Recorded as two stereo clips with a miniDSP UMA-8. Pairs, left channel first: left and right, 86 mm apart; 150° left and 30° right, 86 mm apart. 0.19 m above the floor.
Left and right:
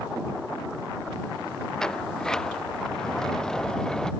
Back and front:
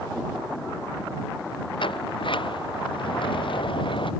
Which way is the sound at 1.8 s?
175° left.